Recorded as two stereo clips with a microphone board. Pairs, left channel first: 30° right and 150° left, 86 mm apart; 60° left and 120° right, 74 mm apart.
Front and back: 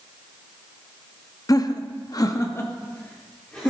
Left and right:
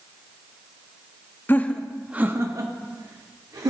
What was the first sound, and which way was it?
Laughter, 5° left.